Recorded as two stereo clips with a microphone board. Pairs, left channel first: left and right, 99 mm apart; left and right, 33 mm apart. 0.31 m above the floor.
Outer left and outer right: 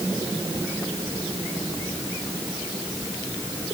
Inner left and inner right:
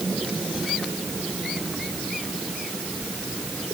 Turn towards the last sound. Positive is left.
No sound to turn to.